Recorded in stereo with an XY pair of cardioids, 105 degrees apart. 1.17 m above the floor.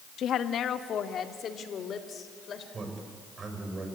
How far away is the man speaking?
About 6 m.